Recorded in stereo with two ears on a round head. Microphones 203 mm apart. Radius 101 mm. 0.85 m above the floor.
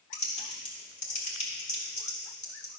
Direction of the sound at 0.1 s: 35° left (ahead or behind).